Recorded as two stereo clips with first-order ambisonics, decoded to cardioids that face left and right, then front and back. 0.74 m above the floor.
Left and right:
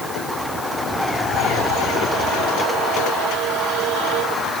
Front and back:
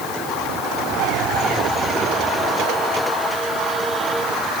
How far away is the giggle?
I don't hear a giggle.